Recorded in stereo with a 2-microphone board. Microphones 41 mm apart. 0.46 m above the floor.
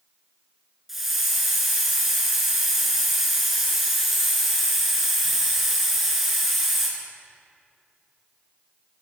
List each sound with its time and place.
0.9 s a hiss: 5° right (ahead or behind), 1.6 m